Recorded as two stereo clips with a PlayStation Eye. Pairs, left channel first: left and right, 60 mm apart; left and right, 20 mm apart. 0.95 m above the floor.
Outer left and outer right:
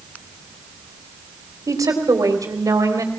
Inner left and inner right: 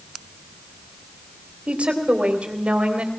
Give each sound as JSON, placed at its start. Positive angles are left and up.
{"t": 1.7, "sound": "a woman speaking", "side_deg": -75, "distance_m": 3.5}